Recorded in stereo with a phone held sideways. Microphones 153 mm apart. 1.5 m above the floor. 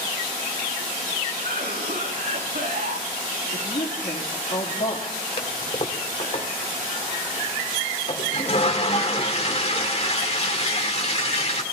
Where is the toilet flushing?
45° left (ahead or behind), 1.8 m.